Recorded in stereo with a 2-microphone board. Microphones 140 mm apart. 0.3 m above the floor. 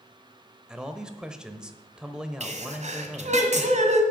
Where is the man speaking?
5° right (ahead or behind), 0.9 m.